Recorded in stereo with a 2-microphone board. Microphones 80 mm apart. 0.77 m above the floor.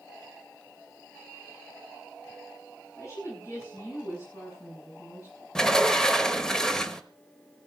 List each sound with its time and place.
3.0 s a woman speaking: 40° left (ahead or behind), 10 m
5.5 s a sliding door: 10° left (ahead or behind), 1.1 m